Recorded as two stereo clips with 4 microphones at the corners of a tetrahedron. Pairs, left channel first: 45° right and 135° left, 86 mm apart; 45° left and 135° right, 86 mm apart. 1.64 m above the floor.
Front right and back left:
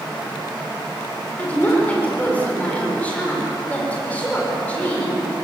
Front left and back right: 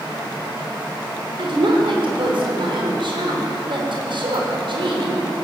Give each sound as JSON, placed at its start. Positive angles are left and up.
{"t": 1.4, "sound": "a woman speaking", "azimuth_deg": -120, "distance_m": 6.0}